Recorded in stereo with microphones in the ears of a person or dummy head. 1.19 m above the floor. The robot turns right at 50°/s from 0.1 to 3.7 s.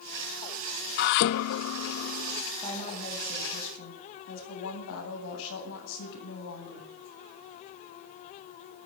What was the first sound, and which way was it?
Dishes clattering, 65° left.